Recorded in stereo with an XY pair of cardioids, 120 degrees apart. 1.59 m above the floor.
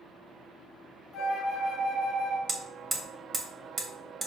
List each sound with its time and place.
1.1 s a flute: 65° left, 0.9 m
2.5 s hammering: 30° right, 0.7 m